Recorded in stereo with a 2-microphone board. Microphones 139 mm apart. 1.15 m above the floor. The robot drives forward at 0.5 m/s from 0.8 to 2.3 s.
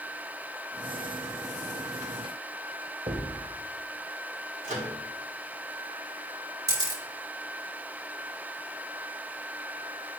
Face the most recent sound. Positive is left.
turn(degrees=-30)  # may be behind; listen again after turning